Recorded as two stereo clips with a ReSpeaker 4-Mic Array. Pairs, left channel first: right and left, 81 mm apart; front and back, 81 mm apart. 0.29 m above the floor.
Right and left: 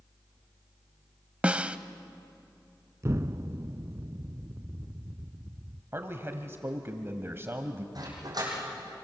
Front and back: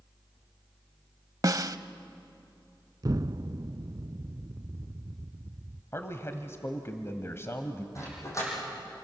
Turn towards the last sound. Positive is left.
turn(degrees=55)